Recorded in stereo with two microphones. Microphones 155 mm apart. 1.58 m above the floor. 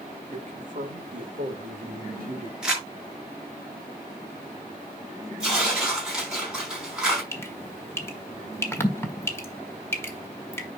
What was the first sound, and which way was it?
A man speaking, 55° right (ahead or behind).